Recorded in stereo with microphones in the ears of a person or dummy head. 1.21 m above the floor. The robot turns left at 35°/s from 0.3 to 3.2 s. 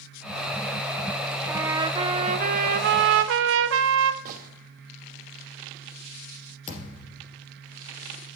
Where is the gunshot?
45° right (ahead or behind), 1.0 m.